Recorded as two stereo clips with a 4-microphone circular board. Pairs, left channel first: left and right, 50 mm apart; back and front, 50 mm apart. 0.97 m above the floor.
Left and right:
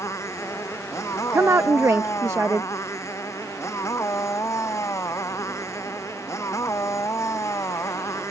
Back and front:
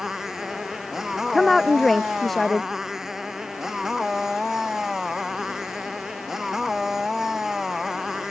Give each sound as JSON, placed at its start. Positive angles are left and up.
{"t": 0.0, "sound": "a motorcycle", "azimuth_deg": 80}
{"t": 1.3, "sound": "a woman speaking", "azimuth_deg": -95}